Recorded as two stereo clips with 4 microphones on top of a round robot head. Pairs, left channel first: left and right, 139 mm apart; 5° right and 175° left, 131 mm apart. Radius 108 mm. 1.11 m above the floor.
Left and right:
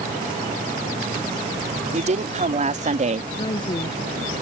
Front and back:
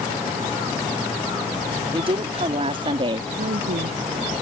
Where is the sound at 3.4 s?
150° left.